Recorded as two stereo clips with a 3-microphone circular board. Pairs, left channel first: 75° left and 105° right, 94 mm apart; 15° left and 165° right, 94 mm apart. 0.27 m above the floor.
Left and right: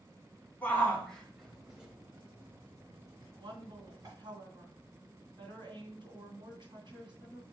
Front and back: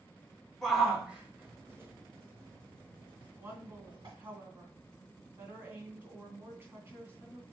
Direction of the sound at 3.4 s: 110° right.